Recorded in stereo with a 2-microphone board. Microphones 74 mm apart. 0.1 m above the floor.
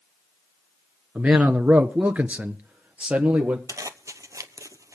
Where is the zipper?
50° right (ahead or behind), 0.8 m.